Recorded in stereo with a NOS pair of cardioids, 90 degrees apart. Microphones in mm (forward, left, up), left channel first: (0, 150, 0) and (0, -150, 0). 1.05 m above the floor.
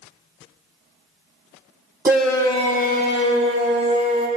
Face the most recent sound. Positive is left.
turn(degrees=55)